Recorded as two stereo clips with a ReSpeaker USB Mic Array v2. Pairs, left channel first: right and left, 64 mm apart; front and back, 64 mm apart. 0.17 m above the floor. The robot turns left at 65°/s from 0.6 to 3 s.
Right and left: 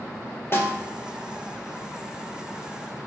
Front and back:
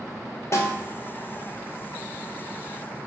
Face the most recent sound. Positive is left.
turn(degrees=160)